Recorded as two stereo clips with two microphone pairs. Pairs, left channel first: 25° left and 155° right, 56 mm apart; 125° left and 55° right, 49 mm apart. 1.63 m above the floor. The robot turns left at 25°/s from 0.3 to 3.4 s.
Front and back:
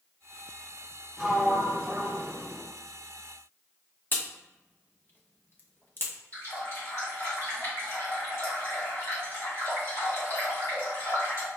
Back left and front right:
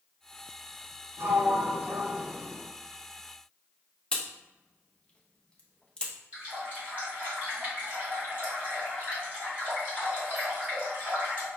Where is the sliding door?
70° right, 0.9 m; by 2.6 s 105° right, 0.9 m.